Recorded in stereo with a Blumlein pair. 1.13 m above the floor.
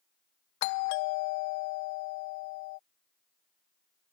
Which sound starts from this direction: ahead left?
A doorbell, at 0.6 s.